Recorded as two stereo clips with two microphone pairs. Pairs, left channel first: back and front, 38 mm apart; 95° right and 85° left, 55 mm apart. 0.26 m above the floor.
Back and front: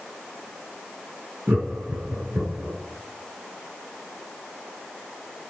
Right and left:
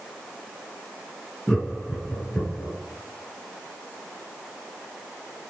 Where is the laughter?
25° right, 3.5 m; by 2.8 s 30° right, 5.5 m.